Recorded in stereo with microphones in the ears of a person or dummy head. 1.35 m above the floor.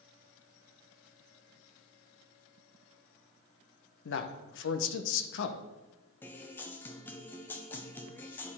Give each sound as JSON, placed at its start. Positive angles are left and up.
{"t": 4.0, "sound": "a man speaking", "side_deg": 60, "distance_m": 0.9}
{"t": 6.2, "sound": "a guitar", "side_deg": 5, "distance_m": 0.7}